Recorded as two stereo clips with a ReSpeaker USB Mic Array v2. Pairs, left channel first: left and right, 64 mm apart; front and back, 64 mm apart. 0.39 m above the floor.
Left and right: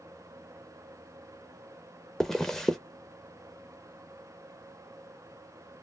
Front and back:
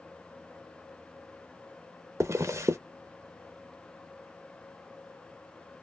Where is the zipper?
170° left, 0.5 m.